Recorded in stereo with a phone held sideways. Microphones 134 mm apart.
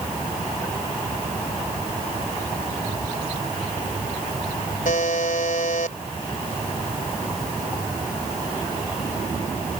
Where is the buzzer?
80° left.